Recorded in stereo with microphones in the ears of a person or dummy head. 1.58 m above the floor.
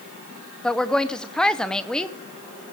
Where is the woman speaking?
5° right (ahead or behind), 0.7 m.